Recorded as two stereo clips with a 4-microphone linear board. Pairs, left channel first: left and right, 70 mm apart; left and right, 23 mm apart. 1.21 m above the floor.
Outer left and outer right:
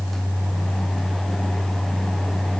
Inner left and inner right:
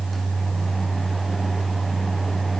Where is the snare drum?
No snare drum in this recording.